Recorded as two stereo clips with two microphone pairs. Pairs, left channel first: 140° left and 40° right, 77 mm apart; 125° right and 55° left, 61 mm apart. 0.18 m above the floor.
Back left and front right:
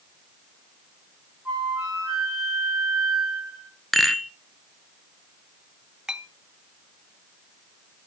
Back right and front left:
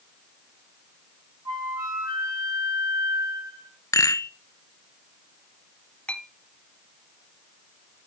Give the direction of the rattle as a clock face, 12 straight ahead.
4 o'clock.